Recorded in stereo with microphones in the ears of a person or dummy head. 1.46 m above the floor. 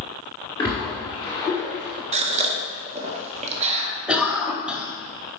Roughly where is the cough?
Centre.